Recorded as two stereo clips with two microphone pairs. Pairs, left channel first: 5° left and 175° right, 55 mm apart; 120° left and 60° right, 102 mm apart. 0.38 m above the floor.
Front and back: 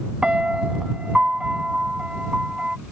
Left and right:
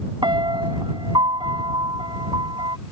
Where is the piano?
100° right.